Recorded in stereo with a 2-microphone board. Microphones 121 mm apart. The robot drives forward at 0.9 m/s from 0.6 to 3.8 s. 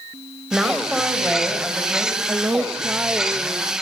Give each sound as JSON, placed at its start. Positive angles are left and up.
{"t": 0.5, "sound": "a woman speaking", "side_deg": -5, "distance_m": 3.5}
{"t": 2.3, "sound": "a woman speaking", "side_deg": -20, "distance_m": 0.8}